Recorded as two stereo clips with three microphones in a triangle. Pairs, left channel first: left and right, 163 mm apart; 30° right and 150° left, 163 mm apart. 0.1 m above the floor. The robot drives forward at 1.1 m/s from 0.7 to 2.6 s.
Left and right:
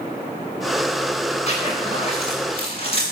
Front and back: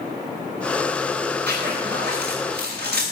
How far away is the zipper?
About 9 m.